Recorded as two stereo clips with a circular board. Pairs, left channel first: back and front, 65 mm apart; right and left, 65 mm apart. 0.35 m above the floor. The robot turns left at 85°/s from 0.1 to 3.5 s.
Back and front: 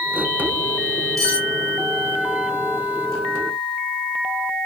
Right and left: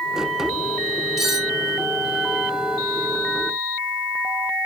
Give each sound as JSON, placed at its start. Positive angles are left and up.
{"t": 1.2, "sound": "cutlery clinking", "azimuth_deg": 10, "distance_m": 1.6}